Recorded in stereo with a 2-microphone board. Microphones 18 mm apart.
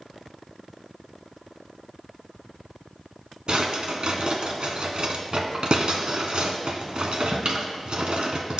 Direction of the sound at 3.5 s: 60° right (ahead or behind).